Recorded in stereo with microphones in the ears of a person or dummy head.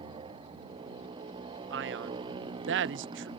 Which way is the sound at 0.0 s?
30° right (ahead or behind).